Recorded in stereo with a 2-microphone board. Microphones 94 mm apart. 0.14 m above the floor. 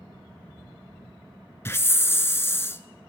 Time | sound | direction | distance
1.6 | a hiss | 25° left (ahead or behind) | 0.5 m